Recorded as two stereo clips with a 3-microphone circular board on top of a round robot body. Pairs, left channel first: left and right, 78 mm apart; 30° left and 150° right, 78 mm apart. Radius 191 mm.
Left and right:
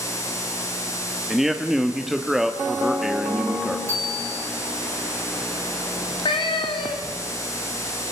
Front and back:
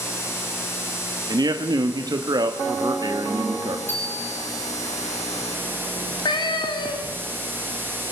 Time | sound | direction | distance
1.3 | a man speaking | 175° right | 1.4 m
3.9 | a bicycle bell | 35° right | 10 m
6.0 | a cat meowing | 65° left | 1.1 m